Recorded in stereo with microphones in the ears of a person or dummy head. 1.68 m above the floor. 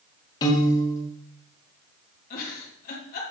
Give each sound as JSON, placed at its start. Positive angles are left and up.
{"t": 0.4, "sound": "a piano", "side_deg": 25, "distance_m": 1.9}
{"t": 2.3, "sound": "a giggle", "side_deg": 50, "distance_m": 2.0}